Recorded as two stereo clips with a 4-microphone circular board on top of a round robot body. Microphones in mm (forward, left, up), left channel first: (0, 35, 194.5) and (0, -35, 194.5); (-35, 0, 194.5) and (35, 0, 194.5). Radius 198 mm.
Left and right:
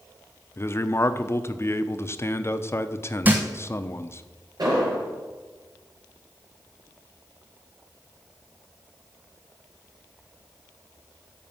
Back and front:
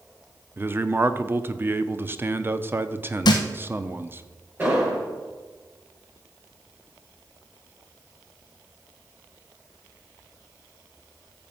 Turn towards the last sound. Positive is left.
turn(degrees=-65)